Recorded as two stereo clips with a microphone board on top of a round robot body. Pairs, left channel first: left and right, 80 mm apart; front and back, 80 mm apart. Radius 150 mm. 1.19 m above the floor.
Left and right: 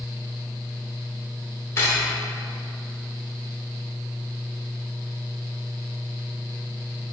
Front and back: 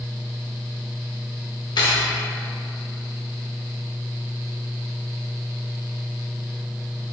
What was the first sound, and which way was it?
Cutlery clinking, 35° left.